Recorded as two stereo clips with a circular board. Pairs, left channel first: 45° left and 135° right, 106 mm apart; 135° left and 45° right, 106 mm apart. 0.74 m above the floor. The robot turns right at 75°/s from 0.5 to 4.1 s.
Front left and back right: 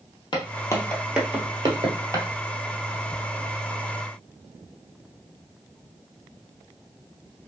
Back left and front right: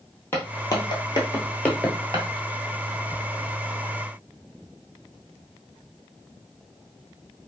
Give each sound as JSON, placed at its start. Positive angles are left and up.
{"t": 0.3, "sound": "footsteps", "azimuth_deg": 70, "distance_m": 1.1}